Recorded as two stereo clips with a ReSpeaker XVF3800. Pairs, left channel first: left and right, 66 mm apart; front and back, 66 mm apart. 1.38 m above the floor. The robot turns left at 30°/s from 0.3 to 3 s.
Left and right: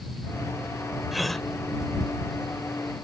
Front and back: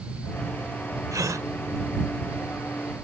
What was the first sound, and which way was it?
A gasp, 175° right.